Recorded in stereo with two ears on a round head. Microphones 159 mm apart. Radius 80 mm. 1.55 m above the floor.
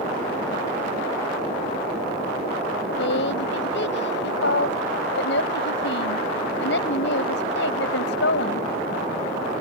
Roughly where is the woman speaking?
Left.